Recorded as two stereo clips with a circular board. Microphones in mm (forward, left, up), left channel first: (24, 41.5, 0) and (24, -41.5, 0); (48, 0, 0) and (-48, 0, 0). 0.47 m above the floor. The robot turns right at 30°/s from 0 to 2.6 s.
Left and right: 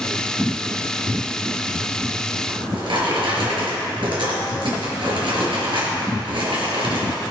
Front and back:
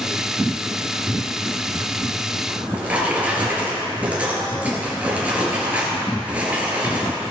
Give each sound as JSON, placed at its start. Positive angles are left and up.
{"t": 2.5, "sound": "a drawer", "azimuth_deg": -110, "distance_m": 3.5}